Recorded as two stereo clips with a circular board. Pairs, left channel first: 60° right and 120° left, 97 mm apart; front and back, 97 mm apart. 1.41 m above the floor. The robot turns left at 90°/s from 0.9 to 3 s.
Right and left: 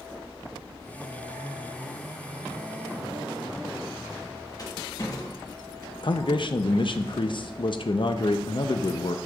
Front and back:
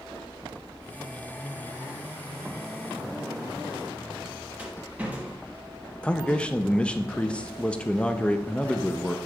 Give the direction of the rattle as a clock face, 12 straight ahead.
4 o'clock.